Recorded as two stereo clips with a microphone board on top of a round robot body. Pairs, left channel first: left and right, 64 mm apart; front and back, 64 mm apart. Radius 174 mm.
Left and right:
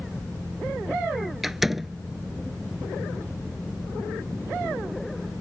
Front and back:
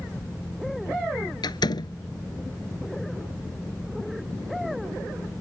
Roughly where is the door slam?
Ahead.